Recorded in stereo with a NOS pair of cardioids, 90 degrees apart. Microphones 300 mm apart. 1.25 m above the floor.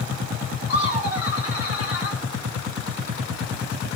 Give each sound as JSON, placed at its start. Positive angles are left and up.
{"t": 0.7, "sound": "laughter", "azimuth_deg": 45, "distance_m": 2.0}